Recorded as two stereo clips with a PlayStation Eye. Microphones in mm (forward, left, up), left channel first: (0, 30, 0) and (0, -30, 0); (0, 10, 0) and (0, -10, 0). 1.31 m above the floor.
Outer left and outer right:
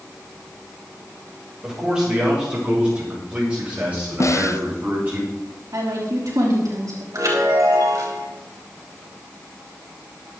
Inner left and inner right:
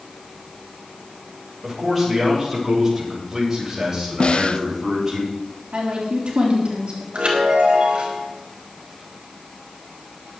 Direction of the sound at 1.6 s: 10° right (ahead or behind).